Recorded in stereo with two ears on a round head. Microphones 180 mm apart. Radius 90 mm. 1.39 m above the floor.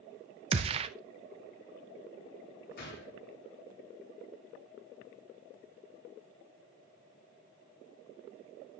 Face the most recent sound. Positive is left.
turn(degrees=55)  # may be behind; listen again after turning